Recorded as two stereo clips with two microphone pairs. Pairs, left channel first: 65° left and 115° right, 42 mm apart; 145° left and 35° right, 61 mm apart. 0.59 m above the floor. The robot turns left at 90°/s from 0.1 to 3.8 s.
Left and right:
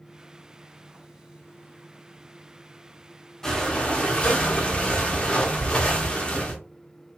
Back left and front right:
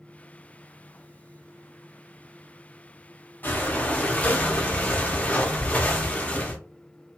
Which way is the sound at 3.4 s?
130° left.